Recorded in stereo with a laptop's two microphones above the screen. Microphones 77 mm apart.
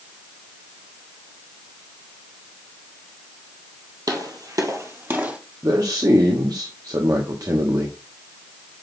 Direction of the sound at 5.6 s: 55° right (ahead or behind).